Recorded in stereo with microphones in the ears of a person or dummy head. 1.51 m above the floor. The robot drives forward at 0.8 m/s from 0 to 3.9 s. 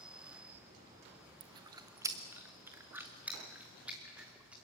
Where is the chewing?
25° right (ahead or behind), 0.8 m; by 4.5 s 5° right (ahead or behind), 2.5 m.